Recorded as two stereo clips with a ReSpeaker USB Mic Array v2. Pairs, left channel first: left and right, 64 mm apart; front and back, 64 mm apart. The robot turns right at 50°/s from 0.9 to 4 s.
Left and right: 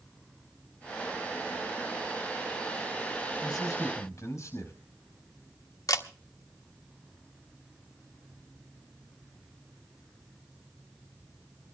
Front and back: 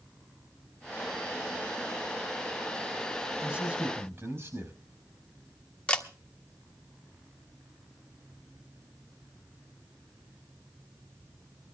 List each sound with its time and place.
3.4 s a man speaking: 100° left, 5 m; by 4.7 s 130° left, 5 m
5.9 s a camera shutter: 70° left, 1.3 m